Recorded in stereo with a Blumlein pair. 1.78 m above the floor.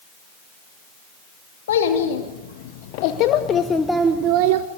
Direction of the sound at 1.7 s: 60° left.